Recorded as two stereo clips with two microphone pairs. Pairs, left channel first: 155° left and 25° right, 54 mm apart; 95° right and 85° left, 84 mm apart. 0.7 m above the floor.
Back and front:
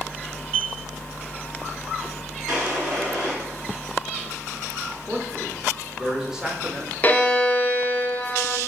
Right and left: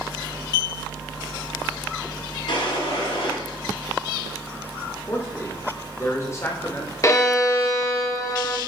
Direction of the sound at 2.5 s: 105° right.